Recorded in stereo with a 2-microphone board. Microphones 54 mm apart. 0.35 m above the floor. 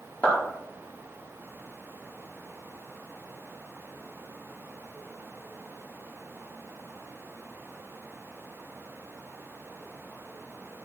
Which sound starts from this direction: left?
A clap, at 0.2 s.